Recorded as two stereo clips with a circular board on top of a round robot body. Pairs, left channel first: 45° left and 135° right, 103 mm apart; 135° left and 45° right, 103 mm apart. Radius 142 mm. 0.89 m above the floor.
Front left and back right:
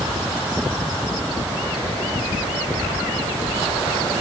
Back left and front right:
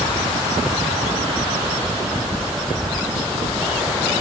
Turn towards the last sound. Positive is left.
No sound to turn to.